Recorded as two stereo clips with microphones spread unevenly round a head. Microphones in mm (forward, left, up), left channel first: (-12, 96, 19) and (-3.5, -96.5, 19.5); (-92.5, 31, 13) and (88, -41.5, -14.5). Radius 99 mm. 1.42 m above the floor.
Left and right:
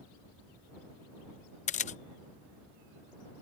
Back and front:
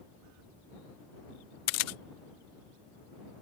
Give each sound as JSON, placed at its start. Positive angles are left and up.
{"t": 1.7, "sound": "a camera shutter", "azimuth_deg": 145}